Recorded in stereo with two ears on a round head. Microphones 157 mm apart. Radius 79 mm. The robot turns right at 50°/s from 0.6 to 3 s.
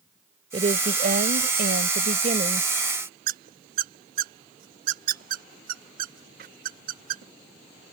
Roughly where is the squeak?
Right.